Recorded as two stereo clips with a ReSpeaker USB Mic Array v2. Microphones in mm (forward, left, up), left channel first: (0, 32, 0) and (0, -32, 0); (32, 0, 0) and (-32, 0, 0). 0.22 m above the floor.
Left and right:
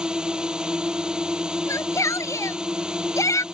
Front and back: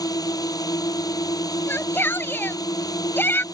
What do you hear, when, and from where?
0.0 s a drone: 15° right
1.7 s a shout: 55° left